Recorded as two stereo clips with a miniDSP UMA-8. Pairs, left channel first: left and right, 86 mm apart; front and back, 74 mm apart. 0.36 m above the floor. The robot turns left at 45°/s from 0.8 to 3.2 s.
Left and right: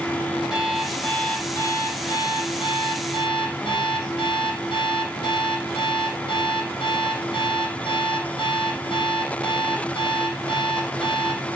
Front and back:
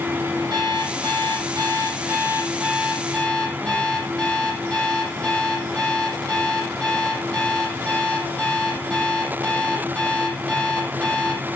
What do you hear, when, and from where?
0.5 s an alarm clock: straight behind, 8.5 m; by 11.4 s 75° left, 8.5 m